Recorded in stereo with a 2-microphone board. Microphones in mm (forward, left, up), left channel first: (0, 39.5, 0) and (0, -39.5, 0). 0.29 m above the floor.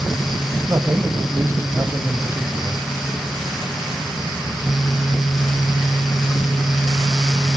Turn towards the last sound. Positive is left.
turn(degrees=-35)  # may be behind; listen again after turning